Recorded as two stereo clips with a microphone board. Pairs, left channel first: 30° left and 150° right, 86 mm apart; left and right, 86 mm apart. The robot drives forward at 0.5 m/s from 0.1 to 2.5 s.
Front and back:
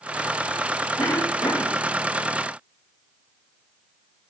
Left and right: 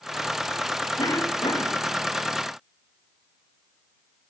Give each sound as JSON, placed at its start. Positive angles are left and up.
{"t": 1.0, "sound": "a cough", "azimuth_deg": 65, "distance_m": 3.0}